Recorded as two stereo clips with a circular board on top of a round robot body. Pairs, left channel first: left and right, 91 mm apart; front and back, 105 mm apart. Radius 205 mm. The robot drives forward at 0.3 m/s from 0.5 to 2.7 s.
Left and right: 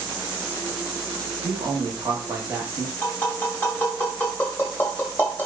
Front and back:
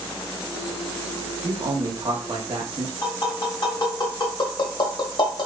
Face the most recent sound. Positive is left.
turn(degrees=25)